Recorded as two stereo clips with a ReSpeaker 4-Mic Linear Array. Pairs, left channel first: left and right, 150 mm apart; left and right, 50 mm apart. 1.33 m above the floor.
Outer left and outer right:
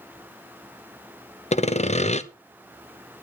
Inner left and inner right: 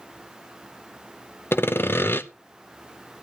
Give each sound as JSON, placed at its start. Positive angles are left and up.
{"t": 1.5, "sound": "sawing", "side_deg": 50, "distance_m": 0.7}